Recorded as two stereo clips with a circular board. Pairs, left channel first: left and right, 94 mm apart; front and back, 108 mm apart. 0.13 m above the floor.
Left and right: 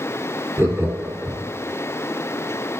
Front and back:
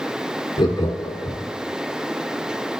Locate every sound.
0.6 s laughter: 35° right, 1.7 m